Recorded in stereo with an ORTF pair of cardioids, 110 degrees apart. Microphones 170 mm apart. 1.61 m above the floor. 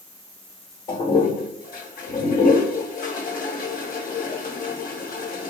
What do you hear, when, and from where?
0.9 s a toilet flushing: 55° left, 1.0 m